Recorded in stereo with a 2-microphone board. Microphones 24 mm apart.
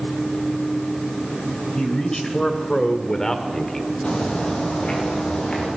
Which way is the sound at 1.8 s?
25° left (ahead or behind).